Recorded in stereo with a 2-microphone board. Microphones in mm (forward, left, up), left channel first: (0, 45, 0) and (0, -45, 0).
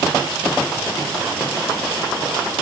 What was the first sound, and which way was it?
Only background noise.